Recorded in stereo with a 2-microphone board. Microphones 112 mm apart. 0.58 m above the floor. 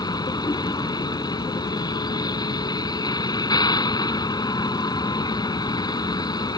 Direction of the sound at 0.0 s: 40° left (ahead or behind).